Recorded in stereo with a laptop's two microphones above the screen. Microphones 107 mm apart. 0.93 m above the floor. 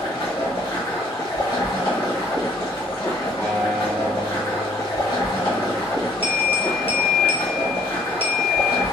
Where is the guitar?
30° left (ahead or behind), 1.0 m.